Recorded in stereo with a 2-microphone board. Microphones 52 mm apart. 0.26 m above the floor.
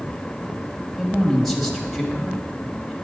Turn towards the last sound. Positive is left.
turn(degrees=0)  # may be behind; listen again after turning